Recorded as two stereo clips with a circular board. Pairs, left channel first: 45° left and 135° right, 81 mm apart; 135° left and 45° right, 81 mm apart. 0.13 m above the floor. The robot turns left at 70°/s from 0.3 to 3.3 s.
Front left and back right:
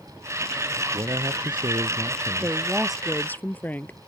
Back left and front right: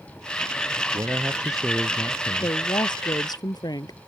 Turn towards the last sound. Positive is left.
turn(degrees=110)